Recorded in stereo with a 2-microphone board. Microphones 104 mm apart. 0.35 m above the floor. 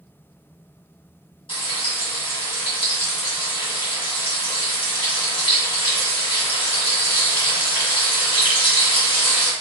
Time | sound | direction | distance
1.5 | frying | 60° left (ahead or behind) | 1.9 m